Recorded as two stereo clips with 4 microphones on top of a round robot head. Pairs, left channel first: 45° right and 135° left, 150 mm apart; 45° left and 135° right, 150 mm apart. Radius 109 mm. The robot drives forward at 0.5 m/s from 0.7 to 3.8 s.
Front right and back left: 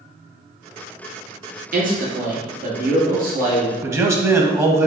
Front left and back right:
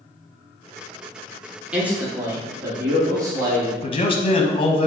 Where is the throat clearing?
I don't hear throat clearing.